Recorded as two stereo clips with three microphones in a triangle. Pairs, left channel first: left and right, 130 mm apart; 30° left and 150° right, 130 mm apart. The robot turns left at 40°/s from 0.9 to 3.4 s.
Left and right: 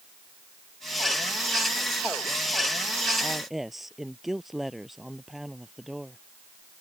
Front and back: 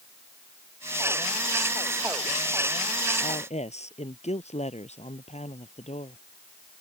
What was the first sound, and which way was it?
A woman speaking, 5° left.